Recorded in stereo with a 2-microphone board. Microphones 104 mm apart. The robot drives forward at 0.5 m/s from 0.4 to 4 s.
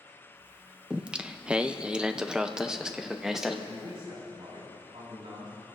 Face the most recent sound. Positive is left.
turn(degrees=-80)